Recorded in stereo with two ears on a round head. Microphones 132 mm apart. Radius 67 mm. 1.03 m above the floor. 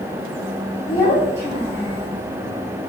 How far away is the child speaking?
About 1.5 m.